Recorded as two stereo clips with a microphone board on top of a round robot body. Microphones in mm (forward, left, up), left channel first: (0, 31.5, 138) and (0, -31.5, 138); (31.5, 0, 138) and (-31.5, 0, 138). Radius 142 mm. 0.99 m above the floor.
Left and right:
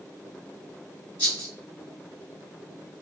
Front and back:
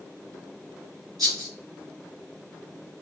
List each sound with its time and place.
1.2 s a rattle: 150° left, 0.7 m